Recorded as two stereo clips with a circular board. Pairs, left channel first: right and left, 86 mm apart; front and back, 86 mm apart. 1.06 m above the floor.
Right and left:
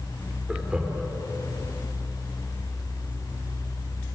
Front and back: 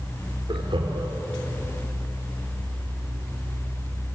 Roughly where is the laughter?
Behind.